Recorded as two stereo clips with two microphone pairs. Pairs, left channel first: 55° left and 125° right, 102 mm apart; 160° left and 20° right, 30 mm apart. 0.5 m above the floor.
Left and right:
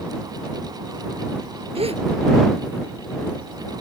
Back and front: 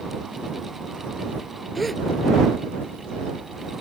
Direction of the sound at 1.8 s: 110° right.